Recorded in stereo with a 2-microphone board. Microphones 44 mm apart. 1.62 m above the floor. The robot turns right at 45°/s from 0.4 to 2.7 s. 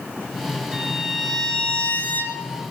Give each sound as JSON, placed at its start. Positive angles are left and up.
{"t": 0.7, "sound": "a violin", "azimuth_deg": -20, "distance_m": 3.5}